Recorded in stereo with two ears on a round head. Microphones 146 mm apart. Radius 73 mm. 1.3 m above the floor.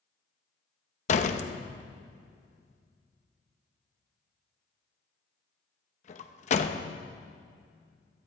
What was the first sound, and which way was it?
A door slam, 45° left (ahead or behind).